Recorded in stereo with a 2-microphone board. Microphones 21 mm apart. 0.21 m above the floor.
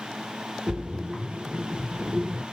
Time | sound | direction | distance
0.7 | a splash | 60° right (ahead or behind) | 1.3 m